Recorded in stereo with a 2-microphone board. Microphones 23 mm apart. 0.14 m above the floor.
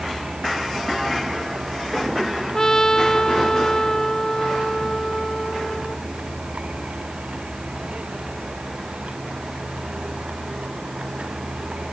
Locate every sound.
0.0 s a vehicle: 55° right (ahead or behind)
2.5 s a trumpet: 25° left (ahead or behind)